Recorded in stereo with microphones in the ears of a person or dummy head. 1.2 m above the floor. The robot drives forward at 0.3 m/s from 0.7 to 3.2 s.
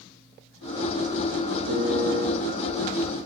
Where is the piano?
70° right (ahead or behind), 3.5 m.